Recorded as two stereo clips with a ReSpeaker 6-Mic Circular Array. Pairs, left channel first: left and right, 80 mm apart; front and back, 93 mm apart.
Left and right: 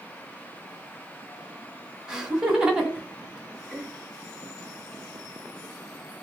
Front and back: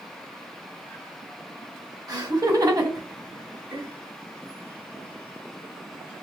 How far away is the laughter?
About 1.8 m.